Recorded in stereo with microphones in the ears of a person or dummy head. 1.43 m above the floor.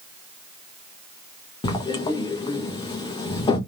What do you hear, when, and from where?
1.6 s writing: 25° left (ahead or behind), 1.2 m